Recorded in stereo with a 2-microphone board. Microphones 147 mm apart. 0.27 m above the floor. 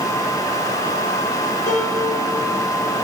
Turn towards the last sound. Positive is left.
turn(degrees=70)  # may be behind; listen again after turning